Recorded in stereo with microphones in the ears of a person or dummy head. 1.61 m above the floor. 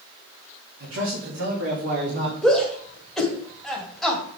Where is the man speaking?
70° right (ahead or behind), 2.5 m; by 2.3 s 65° right (ahead or behind), 2.5 m.